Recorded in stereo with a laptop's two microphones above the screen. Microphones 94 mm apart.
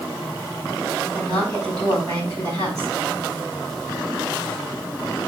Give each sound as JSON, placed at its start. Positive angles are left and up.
{"t": 1.1, "sound": "a woman speaking", "side_deg": -40, "distance_m": 4.5}